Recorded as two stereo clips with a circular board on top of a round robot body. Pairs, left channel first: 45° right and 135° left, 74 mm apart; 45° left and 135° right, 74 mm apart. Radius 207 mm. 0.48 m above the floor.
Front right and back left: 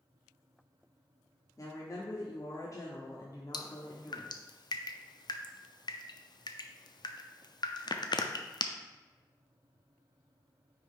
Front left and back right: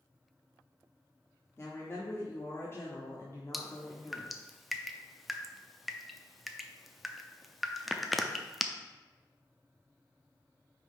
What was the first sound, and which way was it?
A woman speaking, 10° right.